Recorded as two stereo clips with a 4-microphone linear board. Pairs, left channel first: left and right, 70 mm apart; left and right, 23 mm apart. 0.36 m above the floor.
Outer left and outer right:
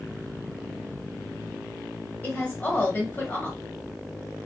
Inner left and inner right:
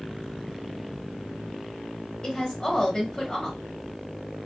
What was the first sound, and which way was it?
A woman speaking, 25° left (ahead or behind).